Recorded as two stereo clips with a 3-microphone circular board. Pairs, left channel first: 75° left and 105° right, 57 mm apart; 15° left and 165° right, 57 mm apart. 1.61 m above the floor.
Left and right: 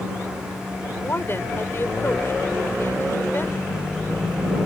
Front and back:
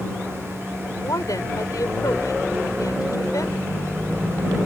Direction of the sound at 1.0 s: 25° left.